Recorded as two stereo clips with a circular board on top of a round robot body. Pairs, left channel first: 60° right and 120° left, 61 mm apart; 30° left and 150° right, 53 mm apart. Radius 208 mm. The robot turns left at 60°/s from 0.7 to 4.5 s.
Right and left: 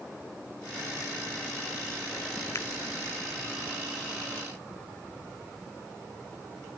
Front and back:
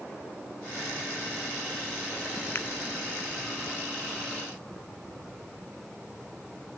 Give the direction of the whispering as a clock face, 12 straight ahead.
I don't hear whispering.